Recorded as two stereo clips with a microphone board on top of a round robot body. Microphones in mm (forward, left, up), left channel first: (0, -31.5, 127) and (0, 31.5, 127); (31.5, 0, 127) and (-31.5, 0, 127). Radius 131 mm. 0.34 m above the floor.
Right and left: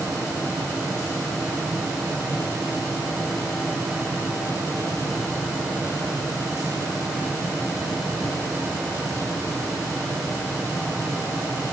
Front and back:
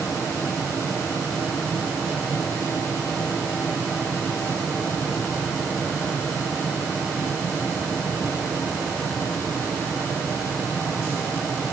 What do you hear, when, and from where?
Only background noise.